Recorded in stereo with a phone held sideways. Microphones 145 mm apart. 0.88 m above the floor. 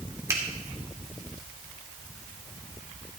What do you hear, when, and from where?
0.3 s a finger snap: 20° right (ahead or behind), 2.0 m